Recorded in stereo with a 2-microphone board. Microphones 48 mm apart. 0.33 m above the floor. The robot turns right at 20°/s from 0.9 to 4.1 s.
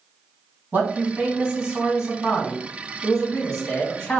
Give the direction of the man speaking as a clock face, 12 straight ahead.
1 o'clock.